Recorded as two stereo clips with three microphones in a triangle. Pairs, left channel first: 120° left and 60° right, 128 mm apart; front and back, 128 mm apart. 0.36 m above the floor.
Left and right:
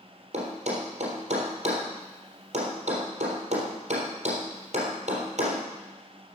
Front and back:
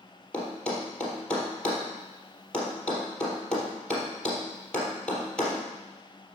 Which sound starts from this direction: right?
A thud, at 0.3 s.